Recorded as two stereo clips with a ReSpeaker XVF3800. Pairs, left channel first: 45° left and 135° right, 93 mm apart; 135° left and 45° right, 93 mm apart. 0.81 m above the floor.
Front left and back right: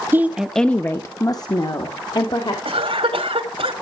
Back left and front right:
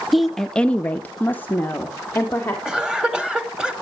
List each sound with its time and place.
0.1 s a woman speaking: 130° right, 0.7 m; by 2.5 s 65° left, 1.8 m
2.6 s a cough: 130° right, 2.0 m